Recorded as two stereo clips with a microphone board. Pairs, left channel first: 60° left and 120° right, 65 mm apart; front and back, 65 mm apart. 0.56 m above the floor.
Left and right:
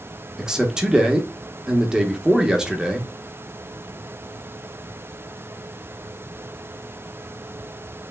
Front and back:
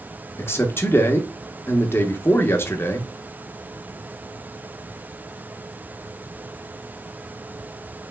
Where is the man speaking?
45° right, 0.9 m.